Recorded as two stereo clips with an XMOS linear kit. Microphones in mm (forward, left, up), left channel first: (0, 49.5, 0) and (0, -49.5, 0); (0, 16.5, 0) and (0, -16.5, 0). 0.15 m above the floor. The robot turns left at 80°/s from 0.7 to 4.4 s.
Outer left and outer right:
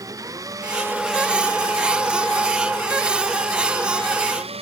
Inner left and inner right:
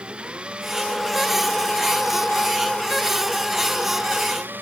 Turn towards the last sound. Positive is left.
turn(degrees=-80)